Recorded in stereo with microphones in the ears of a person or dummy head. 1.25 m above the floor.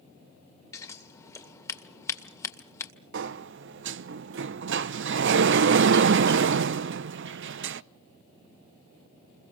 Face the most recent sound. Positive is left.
turn(degrees=-60)  # may be behind; listen again after turning